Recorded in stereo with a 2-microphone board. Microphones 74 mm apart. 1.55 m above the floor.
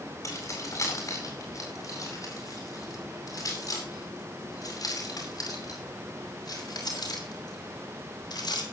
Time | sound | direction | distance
0.2 | keys jangling | 40° left (ahead or behind) | 9 m